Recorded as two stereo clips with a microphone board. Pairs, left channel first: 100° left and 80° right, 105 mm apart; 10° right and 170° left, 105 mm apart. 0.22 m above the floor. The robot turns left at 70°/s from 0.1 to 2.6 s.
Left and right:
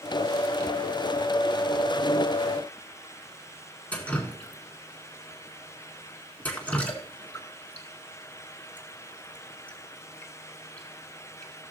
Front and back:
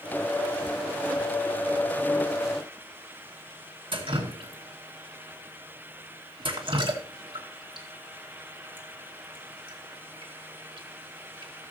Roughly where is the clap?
I don't hear a clap.